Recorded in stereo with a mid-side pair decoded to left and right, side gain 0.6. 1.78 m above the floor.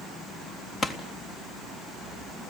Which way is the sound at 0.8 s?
30° left.